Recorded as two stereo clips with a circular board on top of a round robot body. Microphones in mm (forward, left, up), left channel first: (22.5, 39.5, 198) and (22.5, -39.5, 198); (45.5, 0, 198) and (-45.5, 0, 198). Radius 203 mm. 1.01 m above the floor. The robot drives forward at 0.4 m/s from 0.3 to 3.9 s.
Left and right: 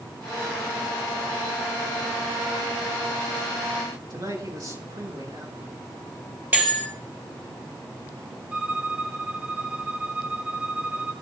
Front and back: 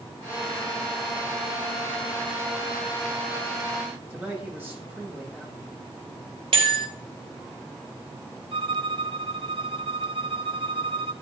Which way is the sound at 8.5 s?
165° right.